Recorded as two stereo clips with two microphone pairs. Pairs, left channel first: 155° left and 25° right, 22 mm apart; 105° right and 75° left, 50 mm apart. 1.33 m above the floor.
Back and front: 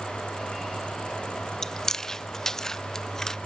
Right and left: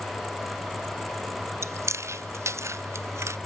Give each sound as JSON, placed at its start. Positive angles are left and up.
{"t": 1.6, "sound": "chewing", "azimuth_deg": 85, "distance_m": 0.5}